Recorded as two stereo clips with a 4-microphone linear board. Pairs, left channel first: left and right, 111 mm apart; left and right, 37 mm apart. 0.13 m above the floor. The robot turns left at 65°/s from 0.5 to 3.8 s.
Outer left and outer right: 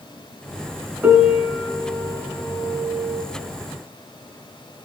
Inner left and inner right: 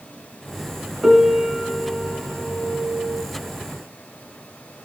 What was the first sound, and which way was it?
A piano, 10° right (ahead or behind).